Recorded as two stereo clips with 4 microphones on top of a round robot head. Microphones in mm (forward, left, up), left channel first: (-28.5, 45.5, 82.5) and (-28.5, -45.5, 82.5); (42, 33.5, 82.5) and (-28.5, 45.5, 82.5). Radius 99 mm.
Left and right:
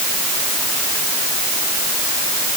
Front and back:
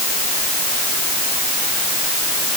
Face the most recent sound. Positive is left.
No sound to turn to.